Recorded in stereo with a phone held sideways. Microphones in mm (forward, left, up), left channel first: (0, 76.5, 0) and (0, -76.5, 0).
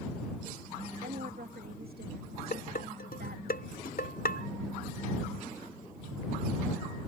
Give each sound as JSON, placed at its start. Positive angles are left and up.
{"t": 1.0, "sound": "a woman speaking", "side_deg": -85}
{"t": 2.5, "sound": "dishes clattering", "side_deg": 80}